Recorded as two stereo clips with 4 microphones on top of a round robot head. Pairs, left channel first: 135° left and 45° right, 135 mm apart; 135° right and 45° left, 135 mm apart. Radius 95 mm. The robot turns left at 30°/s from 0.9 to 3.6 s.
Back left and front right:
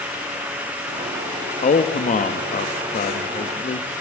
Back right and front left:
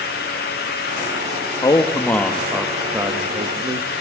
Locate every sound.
1.6 s a man speaking: 160° left, 1.5 m; by 3.9 s 105° left, 1.5 m